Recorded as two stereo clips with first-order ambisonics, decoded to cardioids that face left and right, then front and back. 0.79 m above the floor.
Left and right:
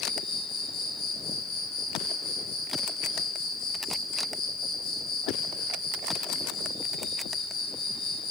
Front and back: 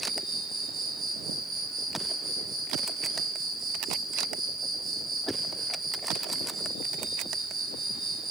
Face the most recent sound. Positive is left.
turn(degrees=115)